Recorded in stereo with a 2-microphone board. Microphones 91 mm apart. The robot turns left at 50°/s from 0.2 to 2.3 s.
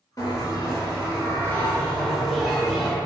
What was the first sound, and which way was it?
A bell, 100° left.